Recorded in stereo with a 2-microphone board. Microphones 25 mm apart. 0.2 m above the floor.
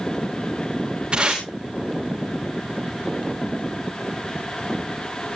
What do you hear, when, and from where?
1.1 s tape being pulled: 45° right (ahead or behind), 5 m